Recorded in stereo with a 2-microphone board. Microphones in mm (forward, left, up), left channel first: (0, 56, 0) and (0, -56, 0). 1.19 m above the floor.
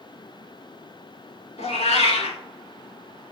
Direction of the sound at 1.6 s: 70° left (ahead or behind).